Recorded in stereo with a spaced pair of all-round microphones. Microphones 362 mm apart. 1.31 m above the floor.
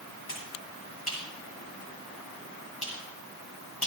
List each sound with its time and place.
0.3 s a finger snap: 90° left, 8.5 m